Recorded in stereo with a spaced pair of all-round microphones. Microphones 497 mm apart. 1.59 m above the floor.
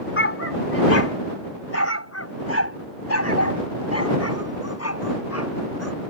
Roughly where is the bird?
I don't hear a bird.